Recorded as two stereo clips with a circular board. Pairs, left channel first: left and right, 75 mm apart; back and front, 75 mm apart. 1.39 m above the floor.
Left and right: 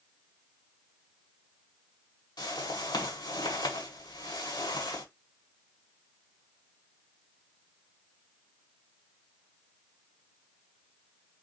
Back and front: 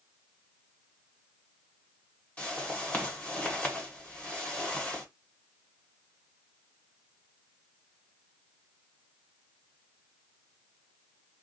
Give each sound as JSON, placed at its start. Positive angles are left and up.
{"t": 2.4, "sound": "a whoosh", "azimuth_deg": 105, "distance_m": 1.6}